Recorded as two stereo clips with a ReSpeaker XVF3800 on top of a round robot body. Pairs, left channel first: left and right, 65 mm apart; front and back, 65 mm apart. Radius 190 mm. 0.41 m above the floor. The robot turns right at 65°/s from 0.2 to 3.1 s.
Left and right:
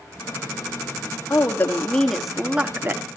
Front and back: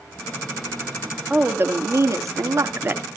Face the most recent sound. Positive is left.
turn(degrees=-125)